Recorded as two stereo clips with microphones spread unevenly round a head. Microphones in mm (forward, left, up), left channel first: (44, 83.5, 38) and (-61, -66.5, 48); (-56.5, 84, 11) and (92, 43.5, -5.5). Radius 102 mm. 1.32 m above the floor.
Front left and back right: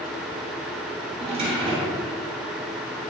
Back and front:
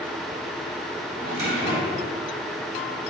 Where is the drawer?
65° right, 3 m.